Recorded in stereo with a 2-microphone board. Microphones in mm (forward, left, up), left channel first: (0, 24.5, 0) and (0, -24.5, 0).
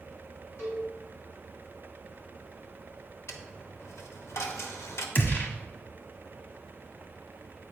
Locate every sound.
0.6 s a cowbell: 65° left (ahead or behind), 3 m
3.3 s a dropped coin: 70° left (ahead or behind), 0.8 m
5.2 s a gunshot: 50° left (ahead or behind), 1.2 m